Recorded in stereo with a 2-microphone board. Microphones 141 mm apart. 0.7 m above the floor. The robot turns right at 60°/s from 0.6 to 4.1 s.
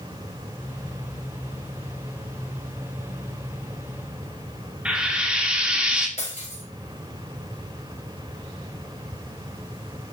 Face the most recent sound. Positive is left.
turn(degrees=50)  # may be behind; listen again after turning